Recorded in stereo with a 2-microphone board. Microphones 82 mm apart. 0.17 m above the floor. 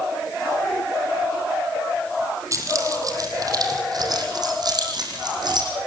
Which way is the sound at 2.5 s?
40° right (ahead or behind).